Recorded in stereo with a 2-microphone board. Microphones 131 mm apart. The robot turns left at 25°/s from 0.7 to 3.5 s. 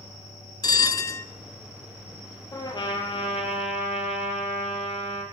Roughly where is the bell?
Left.